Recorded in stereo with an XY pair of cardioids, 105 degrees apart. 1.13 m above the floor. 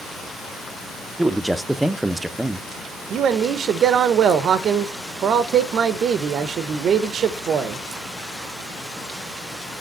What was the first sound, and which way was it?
A man speaking, 10° right.